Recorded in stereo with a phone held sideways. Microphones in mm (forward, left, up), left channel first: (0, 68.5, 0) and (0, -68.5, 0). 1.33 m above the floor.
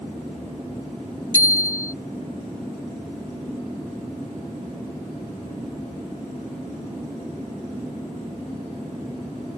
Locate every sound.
1.3 s a bicycle bell: 25° left (ahead or behind)